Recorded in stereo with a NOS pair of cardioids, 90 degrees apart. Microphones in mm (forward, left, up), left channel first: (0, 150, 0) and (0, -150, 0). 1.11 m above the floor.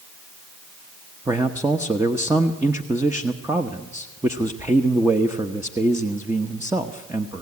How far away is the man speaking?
About 1.0 m.